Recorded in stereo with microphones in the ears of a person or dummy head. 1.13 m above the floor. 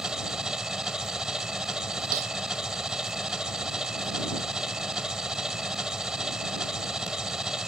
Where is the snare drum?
40° right (ahead or behind).